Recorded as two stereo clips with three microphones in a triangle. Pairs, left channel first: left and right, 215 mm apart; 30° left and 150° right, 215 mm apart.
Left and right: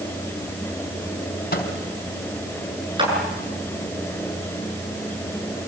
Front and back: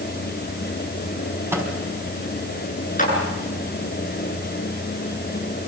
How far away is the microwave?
About 4 m.